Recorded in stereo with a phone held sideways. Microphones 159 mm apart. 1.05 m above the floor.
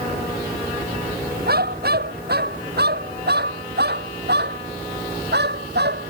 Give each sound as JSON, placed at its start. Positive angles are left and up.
{"t": 1.5, "sound": "a dog barking", "side_deg": -70}